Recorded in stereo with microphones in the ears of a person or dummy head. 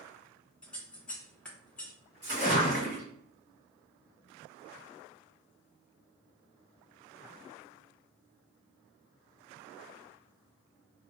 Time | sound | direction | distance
0.6 | scissors | 5° left (ahead or behind) | 0.8 m
2.2 | a splash | 15° right (ahead or behind) | 1.9 m